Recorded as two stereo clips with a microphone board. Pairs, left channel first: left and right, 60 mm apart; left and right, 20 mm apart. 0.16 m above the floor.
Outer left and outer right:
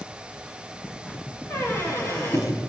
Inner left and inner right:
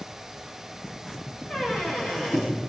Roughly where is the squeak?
Left.